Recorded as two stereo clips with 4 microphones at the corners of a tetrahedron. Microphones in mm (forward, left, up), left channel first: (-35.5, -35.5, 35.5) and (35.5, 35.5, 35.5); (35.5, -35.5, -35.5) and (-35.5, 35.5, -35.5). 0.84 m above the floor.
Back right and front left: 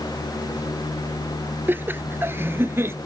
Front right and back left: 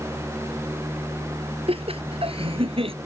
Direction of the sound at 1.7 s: 115° left.